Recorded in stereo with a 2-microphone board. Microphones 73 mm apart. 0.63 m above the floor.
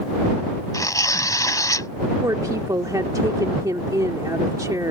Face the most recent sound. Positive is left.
turn(degrees=-55)  # may be behind; listen again after turning